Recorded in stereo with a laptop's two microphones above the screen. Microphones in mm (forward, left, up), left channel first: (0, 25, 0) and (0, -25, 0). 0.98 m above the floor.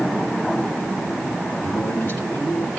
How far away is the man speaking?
About 3.5 m.